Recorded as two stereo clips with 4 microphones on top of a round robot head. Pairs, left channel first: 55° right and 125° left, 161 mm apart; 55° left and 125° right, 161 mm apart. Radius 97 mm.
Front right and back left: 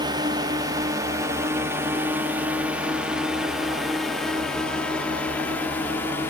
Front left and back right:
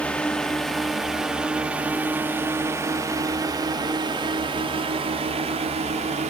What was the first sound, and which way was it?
A drone, 125° left.